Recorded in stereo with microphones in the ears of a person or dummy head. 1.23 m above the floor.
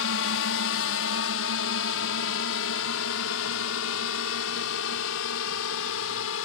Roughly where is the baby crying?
I don't hear a baby crying.